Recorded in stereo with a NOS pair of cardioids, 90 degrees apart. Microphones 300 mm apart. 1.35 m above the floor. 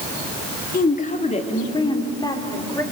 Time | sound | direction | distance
0.7 | a woman speaking | 30° left | 3 m